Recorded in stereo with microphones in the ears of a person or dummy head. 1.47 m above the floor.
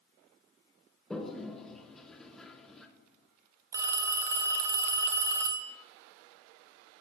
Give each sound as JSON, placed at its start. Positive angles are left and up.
{"t": 1.1, "sound": "a toilet flushing", "side_deg": 5, "distance_m": 1.0}
{"t": 3.7, "sound": "a phone ringing", "side_deg": -15, "distance_m": 0.8}